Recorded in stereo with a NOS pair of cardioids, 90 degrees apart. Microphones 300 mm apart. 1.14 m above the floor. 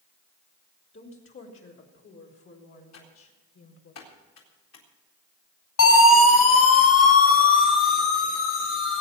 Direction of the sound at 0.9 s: 40° left.